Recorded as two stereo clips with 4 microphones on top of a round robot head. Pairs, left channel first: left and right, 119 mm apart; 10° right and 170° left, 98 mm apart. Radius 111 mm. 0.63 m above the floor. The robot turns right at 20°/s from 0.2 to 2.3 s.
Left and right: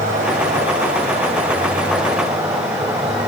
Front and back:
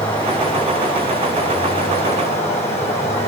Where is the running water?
65° right, 3 m; by 3.3 s 20° right, 3 m.